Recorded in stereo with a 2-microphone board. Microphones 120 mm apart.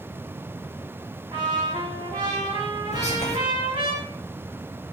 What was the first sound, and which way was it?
A trumpet, 40° right (ahead or behind).